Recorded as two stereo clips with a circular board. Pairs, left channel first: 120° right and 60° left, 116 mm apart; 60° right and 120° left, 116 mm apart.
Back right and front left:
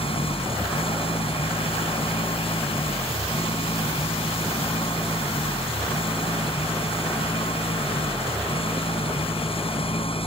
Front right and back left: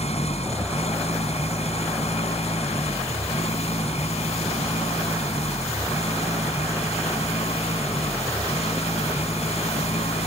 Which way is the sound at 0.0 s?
85° right.